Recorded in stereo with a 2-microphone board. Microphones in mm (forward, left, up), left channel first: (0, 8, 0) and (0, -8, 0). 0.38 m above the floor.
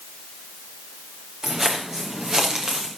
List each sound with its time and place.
1.4 s footsteps: 30° right (ahead or behind), 4 m; by 2.9 s 35° right (ahead or behind), 3 m